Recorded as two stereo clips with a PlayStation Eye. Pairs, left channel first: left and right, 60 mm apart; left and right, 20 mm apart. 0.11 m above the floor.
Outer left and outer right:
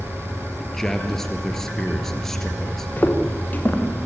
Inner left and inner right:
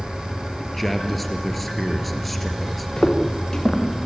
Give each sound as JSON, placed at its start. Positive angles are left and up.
{"t": 0.6, "sound": "a man speaking", "side_deg": 5, "distance_m": 2.5}
{"t": 3.0, "sound": "footsteps", "side_deg": 30, "distance_m": 2.5}